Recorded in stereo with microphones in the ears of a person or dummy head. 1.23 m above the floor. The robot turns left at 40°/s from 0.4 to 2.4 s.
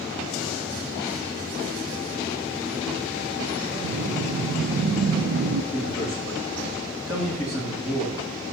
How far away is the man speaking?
About 2.5 m.